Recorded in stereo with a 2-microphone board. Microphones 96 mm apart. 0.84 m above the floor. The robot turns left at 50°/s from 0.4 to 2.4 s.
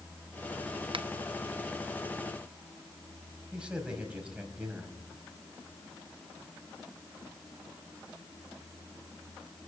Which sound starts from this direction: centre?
A man speaking, at 3.5 s.